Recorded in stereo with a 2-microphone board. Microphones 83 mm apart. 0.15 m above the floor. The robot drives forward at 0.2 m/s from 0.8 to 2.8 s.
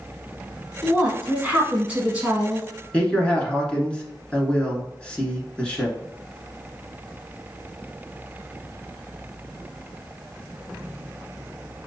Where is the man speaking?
10° left (ahead or behind), 1.4 m.